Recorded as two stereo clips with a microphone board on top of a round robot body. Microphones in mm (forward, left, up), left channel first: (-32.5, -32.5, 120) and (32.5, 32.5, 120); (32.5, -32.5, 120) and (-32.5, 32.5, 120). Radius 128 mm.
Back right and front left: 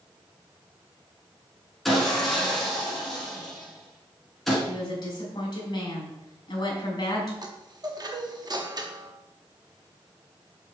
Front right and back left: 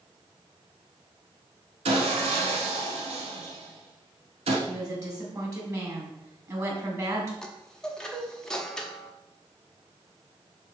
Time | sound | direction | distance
1.9 | sawing | 135° left | 1.0 m
4.7 | a woman speaking | 175° right | 3 m
7.4 | a chime | 35° left | 1.2 m